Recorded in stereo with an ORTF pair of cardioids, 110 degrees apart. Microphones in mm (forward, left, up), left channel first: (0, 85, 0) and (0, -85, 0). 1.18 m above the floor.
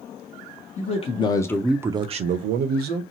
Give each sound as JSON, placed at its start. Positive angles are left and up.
{"t": 0.8, "sound": "a man speaking", "azimuth_deg": 45, "distance_m": 0.9}